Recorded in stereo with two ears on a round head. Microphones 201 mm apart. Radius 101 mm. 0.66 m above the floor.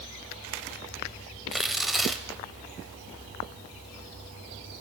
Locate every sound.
1.5 s tearing paper: centre (ahead or behind), 0.8 m